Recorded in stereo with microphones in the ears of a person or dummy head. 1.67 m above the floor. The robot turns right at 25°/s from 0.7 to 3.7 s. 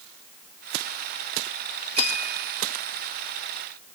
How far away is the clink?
About 5.5 m.